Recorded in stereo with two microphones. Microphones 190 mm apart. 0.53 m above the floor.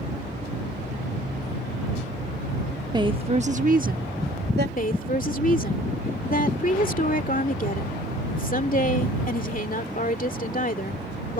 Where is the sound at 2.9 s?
20° right (ahead or behind); by 4.7 s 60° right (ahead or behind).